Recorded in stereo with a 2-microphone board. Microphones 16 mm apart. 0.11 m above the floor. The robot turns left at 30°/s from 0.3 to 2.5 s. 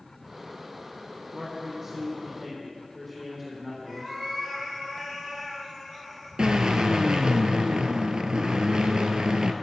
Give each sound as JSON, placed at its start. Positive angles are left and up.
{"t": 1.3, "sound": "a man speaking", "azimuth_deg": -140, "distance_m": 4.0}
{"t": 3.9, "sound": "a cat meowing", "side_deg": -25, "distance_m": 4.5}
{"t": 6.4, "sound": "a drill", "side_deg": -55, "distance_m": 1.0}